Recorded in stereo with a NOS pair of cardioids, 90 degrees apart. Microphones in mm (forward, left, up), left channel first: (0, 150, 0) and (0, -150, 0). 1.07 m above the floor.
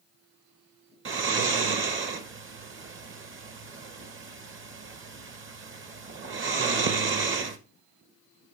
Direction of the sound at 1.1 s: 45° right.